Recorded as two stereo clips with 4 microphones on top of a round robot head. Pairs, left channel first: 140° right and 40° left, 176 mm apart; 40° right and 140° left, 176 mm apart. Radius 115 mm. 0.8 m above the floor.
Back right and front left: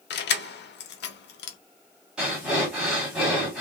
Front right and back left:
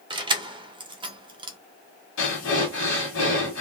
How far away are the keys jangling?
About 0.6 m.